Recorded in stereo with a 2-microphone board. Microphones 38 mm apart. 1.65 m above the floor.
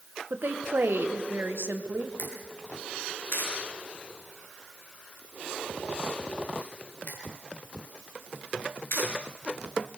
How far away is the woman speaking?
About 1.5 m.